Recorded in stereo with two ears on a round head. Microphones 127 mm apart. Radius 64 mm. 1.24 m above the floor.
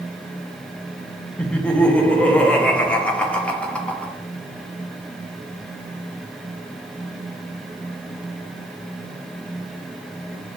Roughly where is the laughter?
Centre.